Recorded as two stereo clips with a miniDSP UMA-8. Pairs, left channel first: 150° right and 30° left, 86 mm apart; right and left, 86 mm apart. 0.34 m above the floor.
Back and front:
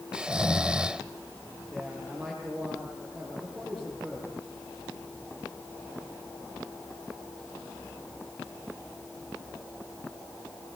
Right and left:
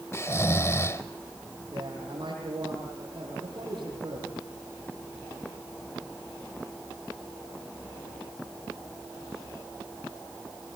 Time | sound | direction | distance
0.1 | snoring | 45° right | 0.9 m
1.7 | a man speaking | 115° left | 8 m